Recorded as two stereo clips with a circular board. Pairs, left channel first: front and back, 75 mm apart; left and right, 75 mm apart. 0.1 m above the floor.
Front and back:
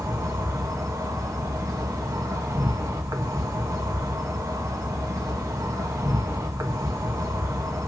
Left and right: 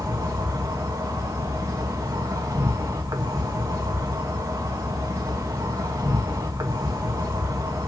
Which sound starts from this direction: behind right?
An insect, at 0.0 s.